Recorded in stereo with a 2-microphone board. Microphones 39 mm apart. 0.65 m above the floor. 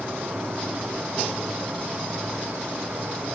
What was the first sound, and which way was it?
An insect, 60° right (ahead or behind).